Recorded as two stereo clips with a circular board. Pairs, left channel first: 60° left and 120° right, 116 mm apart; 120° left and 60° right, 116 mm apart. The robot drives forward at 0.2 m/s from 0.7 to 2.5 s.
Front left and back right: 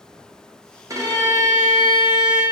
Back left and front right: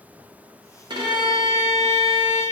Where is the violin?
75° right, 0.6 m; by 2.4 s 120° right, 0.6 m.